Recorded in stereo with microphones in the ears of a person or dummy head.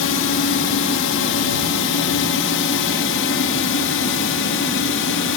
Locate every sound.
0.0 s a drone: 65° left (ahead or behind); by 5.4 s 60° left (ahead or behind)